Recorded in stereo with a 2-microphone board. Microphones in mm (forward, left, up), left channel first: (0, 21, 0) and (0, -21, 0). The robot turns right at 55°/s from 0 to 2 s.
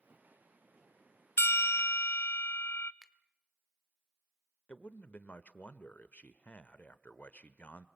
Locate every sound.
1.4 s a bell: 75° left, 0.5 m; by 2.9 s 110° left, 0.5 m
3.0 s a finger snap: 10° right (ahead or behind), 0.9 m
4.7 s a man speaking: 35° left (ahead or behind), 0.9 m